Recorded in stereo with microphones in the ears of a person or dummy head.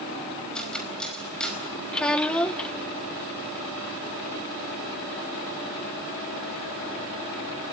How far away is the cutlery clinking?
About 4.5 m.